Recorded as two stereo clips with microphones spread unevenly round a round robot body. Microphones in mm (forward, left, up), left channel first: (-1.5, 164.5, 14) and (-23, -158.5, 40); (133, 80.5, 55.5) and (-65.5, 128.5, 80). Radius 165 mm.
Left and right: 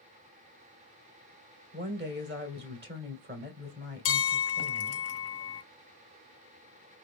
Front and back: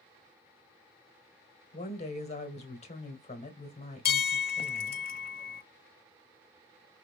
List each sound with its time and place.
1.7 s a woman speaking: 45° right, 1.8 m
4.0 s a bell: 35° left, 0.6 m